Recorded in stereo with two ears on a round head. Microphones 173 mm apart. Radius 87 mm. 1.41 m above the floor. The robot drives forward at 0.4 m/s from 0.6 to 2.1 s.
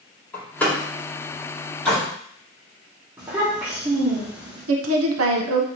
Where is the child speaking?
10° right (ahead or behind), 1.1 m.